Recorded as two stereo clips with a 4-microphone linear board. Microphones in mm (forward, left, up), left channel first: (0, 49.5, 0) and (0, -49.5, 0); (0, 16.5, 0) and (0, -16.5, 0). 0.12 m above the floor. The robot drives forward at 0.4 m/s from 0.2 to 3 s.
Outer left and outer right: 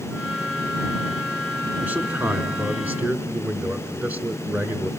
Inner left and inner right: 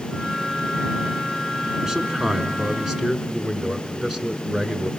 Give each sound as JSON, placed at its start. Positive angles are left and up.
{"t": 1.8, "sound": "a man speaking", "side_deg": -20, "distance_m": 1.1}